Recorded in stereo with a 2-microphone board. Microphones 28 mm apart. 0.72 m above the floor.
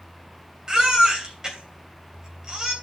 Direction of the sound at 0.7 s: 25° right (ahead or behind).